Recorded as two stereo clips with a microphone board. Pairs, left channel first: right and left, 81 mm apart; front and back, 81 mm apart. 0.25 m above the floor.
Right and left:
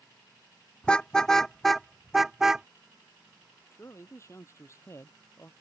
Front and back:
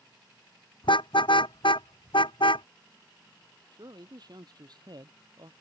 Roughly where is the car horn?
Ahead.